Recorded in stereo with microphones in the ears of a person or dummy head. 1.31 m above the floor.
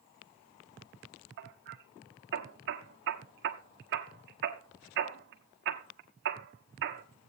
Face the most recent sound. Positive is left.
turn(degrees=-60)  # may be behind; listen again after turning